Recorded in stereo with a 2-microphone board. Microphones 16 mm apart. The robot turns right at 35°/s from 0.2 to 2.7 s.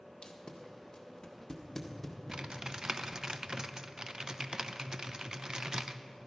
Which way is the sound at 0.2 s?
65° left (ahead or behind).